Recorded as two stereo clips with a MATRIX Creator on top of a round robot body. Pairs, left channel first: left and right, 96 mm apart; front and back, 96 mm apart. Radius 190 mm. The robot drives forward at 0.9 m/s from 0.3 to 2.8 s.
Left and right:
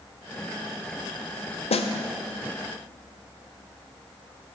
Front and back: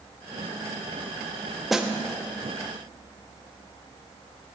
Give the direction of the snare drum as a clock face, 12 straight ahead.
9 o'clock.